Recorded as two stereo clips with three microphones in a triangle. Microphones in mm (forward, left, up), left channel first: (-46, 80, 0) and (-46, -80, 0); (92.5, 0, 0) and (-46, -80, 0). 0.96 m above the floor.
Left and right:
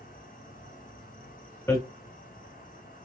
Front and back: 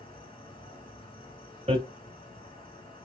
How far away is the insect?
About 2.5 m.